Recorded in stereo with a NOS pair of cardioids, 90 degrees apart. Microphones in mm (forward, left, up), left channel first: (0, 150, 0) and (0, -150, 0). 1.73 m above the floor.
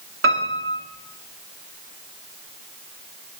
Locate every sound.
0.2 s a piano: 45° right, 3 m